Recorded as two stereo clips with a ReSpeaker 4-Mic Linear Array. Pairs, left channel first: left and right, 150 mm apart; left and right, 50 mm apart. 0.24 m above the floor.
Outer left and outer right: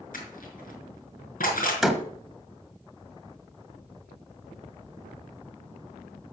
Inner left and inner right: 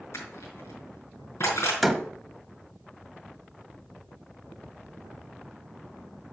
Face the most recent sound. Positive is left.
turn(degrees=0)  # may be behind; listen again after turning